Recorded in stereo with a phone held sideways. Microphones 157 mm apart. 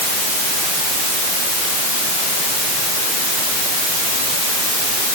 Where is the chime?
No chime in this recording.